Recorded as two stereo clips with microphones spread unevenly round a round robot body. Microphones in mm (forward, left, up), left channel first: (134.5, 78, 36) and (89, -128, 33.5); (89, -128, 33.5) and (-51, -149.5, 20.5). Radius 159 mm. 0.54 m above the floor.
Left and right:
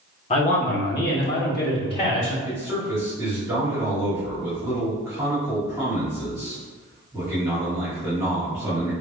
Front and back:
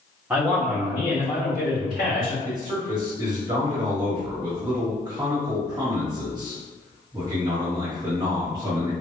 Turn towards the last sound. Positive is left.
turn(degrees=-160)